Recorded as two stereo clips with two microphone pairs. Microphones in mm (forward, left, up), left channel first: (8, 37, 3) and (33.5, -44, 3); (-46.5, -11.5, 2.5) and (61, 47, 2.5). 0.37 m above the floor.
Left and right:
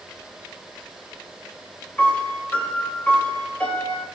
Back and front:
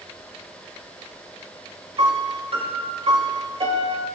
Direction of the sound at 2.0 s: 40° left.